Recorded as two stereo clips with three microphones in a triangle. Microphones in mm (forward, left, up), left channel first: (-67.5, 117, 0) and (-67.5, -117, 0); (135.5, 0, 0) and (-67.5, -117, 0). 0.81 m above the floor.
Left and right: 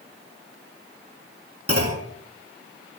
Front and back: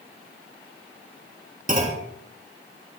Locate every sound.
1.7 s a clunk: 95° right, 3 m